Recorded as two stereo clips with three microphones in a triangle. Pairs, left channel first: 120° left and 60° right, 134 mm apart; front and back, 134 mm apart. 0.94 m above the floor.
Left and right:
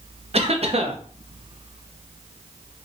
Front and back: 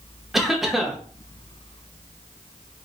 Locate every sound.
0.3 s a cough: 90° right, 0.7 m